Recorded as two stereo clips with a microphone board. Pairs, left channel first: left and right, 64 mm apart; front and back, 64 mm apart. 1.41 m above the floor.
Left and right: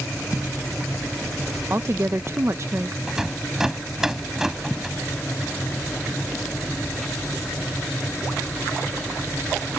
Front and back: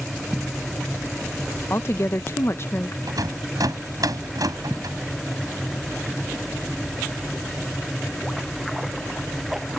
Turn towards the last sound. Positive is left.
turn(degrees=-170)